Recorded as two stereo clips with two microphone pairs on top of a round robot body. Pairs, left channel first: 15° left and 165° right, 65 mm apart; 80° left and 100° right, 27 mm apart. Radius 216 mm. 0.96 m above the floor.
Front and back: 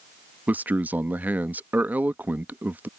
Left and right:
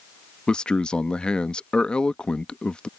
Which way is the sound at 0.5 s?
130° left.